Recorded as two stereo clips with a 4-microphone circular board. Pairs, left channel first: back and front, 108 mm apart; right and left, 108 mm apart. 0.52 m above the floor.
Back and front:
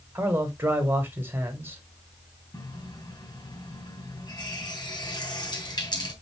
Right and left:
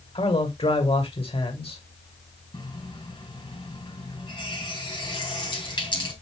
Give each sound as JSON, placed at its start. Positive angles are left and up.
{"t": 0.1, "sound": "a man speaking", "azimuth_deg": -70, "distance_m": 3.0}
{"t": 2.5, "sound": "a running tap", "azimuth_deg": -130, "distance_m": 4.5}